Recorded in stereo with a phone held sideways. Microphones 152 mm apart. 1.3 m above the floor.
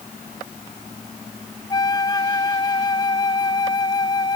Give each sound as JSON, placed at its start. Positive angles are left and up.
{"t": 1.7, "sound": "a flute", "side_deg": 25}